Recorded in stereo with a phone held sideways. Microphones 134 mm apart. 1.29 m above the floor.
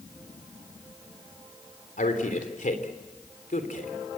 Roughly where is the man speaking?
Left.